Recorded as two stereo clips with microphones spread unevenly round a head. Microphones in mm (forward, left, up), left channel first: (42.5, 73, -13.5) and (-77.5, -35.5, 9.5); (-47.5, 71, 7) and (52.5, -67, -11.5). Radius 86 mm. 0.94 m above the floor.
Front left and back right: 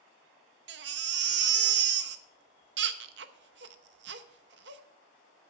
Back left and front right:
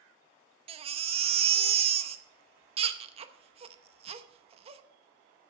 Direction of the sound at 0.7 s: 110° right.